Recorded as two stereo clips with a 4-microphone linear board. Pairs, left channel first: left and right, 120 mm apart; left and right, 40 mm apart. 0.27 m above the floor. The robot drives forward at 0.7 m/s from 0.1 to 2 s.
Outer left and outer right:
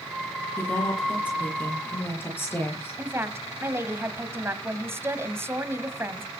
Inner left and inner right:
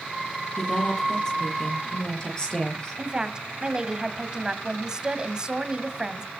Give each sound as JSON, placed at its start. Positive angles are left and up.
{"t": 0.6, "sound": "a woman speaking", "side_deg": 15, "distance_m": 7.5}
{"t": 3.0, "sound": "a woman speaking", "side_deg": -20, "distance_m": 1.9}